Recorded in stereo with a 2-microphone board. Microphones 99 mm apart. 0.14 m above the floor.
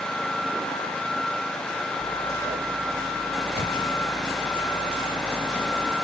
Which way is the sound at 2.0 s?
35° right (ahead or behind).